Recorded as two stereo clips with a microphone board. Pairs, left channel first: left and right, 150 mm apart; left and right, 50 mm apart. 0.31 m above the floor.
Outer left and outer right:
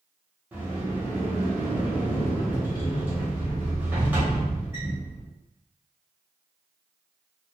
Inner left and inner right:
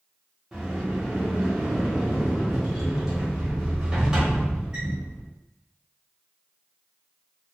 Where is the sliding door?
10° right (ahead or behind), 1.0 m.